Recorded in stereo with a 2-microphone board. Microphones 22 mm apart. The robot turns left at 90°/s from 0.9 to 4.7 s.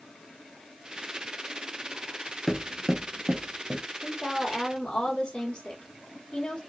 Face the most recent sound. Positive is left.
turn(degrees=130)